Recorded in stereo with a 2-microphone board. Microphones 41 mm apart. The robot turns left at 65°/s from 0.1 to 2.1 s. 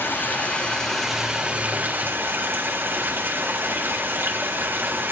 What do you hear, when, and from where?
0.0 s running water: 65° left, 3.5 m; by 5.1 s 65° right, 3.5 m